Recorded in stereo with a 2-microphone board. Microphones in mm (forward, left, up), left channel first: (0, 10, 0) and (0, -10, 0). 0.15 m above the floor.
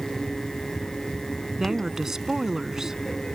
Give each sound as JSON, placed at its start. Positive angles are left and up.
{"t": 1.6, "sound": "a woman speaking", "side_deg": -25}